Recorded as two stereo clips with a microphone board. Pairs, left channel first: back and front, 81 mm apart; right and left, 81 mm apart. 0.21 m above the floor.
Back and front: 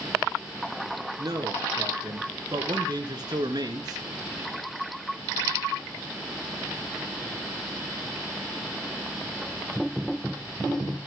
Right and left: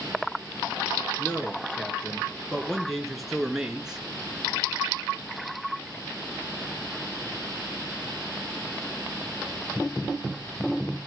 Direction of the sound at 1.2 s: 25° right.